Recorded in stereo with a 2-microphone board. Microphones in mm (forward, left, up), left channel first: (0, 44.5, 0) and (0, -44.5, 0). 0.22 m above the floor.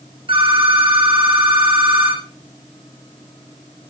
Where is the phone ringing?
80° right, 7 m.